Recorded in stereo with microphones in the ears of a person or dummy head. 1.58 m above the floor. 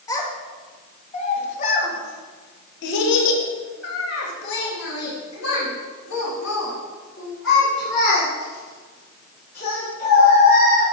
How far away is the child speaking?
About 2 m.